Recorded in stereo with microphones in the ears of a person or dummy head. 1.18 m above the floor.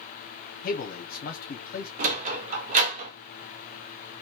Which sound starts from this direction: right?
A sliding door, at 2.0 s.